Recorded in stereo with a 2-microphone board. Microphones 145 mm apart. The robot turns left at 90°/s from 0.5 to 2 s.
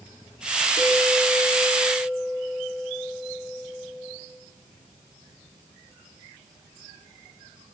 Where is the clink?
110° left, 5.5 m; by 4.2 s straight ahead, 5.5 m.